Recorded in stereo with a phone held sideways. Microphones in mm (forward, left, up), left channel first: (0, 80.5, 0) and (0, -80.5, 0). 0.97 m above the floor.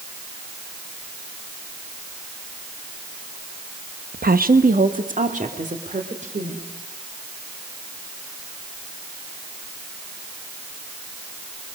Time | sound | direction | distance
4.1 | a woman speaking | 70° right (ahead or behind) | 0.7 m